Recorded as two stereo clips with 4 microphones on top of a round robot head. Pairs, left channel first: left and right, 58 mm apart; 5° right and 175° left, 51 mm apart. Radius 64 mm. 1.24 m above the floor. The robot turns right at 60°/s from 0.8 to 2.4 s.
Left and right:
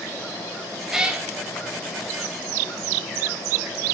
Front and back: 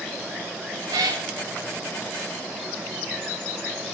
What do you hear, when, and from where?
0.9 s a cat meowing: 170° right, 0.7 m; by 1.3 s 150° right, 0.7 m